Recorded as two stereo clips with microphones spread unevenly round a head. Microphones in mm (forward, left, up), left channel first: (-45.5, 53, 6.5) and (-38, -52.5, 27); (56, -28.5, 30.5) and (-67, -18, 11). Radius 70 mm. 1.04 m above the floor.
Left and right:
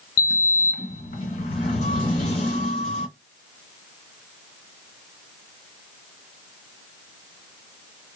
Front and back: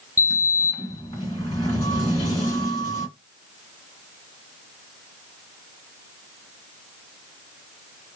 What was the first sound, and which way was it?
A sliding door, 50° left.